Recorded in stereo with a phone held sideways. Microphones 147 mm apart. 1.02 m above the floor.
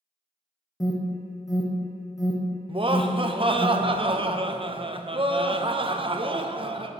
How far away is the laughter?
About 0.6 m.